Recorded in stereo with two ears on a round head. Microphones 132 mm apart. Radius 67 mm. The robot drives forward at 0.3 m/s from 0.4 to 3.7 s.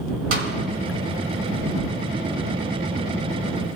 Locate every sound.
0.3 s a snare drum: 75° right (ahead or behind), 2.5 m